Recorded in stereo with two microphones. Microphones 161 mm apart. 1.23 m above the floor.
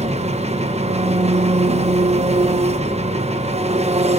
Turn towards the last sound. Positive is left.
turn(degrees=-40)  # may be behind; listen again after turning